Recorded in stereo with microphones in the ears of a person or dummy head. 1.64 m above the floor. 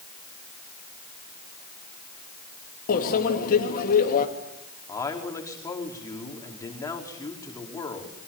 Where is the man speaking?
15° left (ahead or behind), 5 m.